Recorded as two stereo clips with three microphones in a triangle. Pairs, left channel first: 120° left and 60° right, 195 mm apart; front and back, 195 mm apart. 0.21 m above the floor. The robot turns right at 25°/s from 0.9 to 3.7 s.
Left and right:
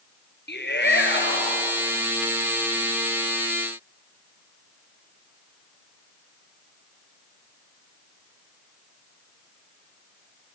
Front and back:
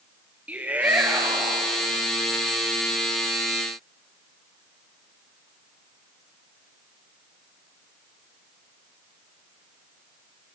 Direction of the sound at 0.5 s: 100° left.